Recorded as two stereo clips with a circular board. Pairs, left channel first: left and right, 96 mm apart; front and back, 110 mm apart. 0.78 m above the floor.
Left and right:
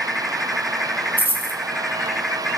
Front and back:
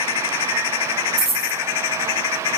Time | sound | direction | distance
1.2 | a dropped coin | 160° right | 1.9 m